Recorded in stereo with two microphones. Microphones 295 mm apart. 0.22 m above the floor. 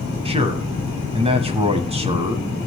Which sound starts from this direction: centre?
A man speaking, at 0.2 s.